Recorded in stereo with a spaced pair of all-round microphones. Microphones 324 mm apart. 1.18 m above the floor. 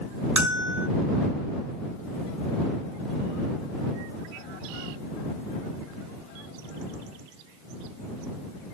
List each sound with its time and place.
0.4 s a bell: 60° right (ahead or behind)